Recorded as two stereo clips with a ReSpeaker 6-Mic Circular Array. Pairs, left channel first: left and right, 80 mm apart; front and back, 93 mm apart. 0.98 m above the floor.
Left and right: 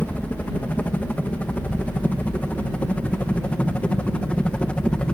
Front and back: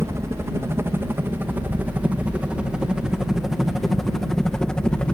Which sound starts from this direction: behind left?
A helicopter, at 0.0 s.